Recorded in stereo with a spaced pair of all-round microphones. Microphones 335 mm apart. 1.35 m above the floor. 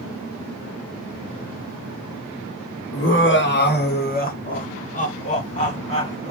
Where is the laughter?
40° left (ahead or behind), 0.9 m; by 6.3 s 20° left (ahead or behind), 3 m.